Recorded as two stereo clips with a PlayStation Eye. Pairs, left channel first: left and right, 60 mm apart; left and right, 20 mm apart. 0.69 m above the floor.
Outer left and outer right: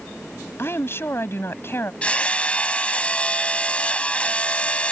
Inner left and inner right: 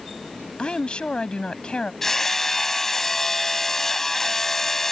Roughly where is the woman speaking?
Left.